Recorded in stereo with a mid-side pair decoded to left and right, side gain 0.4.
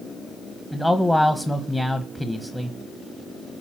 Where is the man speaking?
10° left, 1.2 m.